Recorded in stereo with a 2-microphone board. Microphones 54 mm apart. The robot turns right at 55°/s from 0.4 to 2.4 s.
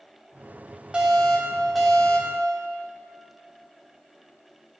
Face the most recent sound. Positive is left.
turn(degrees=15)  # may be behind; listen again after turning